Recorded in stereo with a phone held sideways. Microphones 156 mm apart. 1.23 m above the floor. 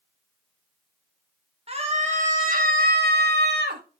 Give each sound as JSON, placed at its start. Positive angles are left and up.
{"t": 1.7, "sound": "a scream", "side_deg": -35, "distance_m": 2.5}